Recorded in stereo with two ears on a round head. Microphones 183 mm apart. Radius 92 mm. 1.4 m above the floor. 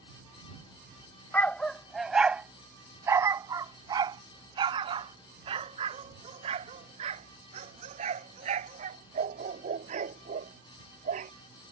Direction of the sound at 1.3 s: 10° left (ahead or behind).